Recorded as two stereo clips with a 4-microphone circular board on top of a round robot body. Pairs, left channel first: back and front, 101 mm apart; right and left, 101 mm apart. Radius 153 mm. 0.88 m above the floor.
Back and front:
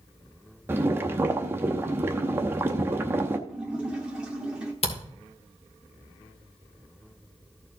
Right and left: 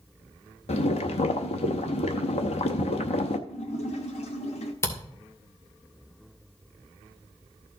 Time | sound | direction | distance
0.7 | boiling | 70° right | 0.6 m
3.5 | a splash | 80° right | 1.3 m
4.8 | a camera shutter | 155° right | 2.5 m